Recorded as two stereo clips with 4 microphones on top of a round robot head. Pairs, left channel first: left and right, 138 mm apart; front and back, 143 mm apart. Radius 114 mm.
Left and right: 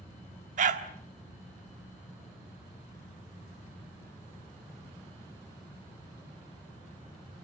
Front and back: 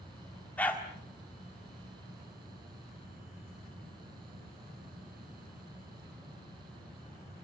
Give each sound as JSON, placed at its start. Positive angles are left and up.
{"t": 0.6, "sound": "a dog barking", "azimuth_deg": -80, "distance_m": 1.5}